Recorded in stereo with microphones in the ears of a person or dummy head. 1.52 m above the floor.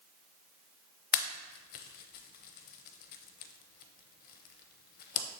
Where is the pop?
50° left (ahead or behind), 0.6 m.